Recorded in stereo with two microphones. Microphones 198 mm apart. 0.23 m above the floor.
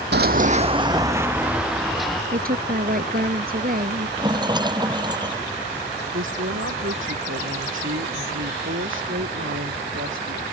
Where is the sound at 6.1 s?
75° right (ahead or behind).